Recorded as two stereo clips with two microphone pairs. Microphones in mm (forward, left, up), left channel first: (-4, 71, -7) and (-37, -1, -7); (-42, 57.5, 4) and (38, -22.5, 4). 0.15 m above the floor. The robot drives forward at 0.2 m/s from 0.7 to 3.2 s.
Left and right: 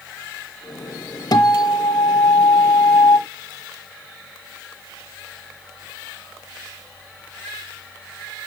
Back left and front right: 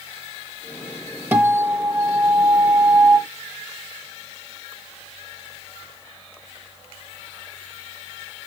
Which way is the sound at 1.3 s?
35° left.